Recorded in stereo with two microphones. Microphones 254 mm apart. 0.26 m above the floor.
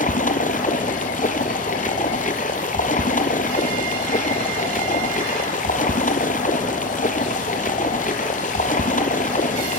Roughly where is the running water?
Left.